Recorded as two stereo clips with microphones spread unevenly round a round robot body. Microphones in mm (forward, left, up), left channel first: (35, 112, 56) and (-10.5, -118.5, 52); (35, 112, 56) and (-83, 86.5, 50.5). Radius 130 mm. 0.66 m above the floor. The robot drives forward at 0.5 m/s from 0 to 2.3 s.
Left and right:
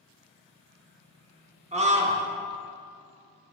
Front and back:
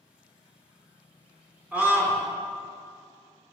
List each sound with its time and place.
1.7 s a scream: 105° right, 0.8 m; by 2.2 s 135° right, 0.9 m